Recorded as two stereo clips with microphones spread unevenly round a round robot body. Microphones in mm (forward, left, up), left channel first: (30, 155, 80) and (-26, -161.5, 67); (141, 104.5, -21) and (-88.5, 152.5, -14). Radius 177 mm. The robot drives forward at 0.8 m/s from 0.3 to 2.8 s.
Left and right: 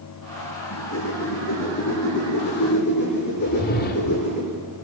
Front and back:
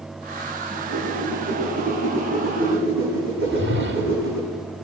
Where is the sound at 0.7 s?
130° left, 10 m; by 4.4 s 140° left, 11 m.